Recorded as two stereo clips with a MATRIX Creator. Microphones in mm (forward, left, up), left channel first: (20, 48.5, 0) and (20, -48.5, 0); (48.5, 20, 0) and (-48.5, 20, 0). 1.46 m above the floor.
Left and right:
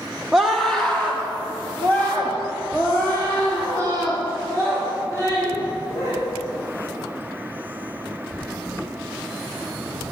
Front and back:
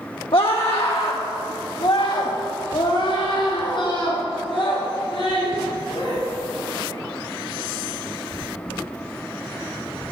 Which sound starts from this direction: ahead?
A scream, at 0.3 s.